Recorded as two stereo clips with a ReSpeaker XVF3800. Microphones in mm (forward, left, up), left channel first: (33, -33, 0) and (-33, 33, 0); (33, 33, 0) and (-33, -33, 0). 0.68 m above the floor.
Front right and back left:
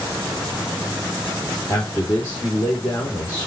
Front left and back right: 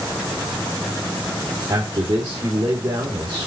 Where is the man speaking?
95° right, 2.0 m.